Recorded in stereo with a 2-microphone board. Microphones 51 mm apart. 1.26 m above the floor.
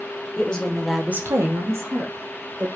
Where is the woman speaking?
20° left (ahead or behind), 1.3 m; by 2.7 s 55° right (ahead or behind), 2 m.